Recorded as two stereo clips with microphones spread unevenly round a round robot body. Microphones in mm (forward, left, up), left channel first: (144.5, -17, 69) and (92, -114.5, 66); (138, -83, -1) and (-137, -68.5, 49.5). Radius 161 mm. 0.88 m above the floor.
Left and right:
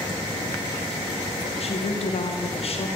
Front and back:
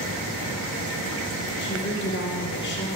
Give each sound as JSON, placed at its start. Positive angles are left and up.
{"t": 1.6, "sound": "a woman speaking", "azimuth_deg": 40, "distance_m": 2.5}